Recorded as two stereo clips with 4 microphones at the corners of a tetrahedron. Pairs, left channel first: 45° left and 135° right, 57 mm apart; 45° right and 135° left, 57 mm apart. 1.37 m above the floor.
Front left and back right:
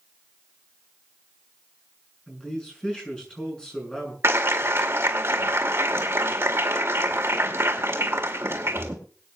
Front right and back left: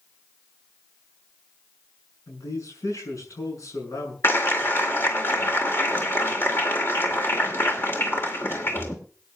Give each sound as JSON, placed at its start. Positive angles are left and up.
{"t": 2.3, "sound": "a man speaking", "azimuth_deg": -30, "distance_m": 6.5}
{"t": 4.2, "sound": "a clap", "azimuth_deg": -95, "distance_m": 2.0}